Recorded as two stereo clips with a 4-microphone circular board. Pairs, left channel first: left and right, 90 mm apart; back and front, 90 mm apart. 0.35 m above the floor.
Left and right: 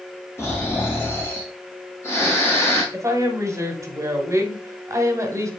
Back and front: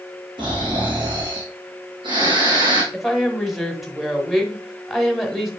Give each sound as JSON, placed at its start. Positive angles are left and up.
{"t": 0.4, "sound": "snoring", "azimuth_deg": 30, "distance_m": 3.0}
{"t": 2.9, "sound": "a woman speaking", "azimuth_deg": -90, "distance_m": 1.6}